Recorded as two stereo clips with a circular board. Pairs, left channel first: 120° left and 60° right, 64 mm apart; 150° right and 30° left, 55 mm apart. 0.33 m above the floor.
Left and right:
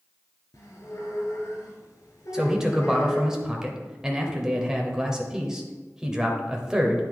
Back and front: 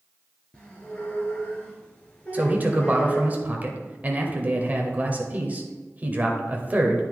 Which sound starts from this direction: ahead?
A man speaking, at 2.3 s.